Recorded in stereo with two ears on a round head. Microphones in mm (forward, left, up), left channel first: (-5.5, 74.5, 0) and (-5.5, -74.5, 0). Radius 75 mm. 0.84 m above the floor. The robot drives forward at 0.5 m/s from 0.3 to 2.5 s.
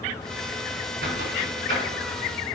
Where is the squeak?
65° right (ahead or behind), 4 m; by 2.6 s 55° right (ahead or behind), 4.5 m.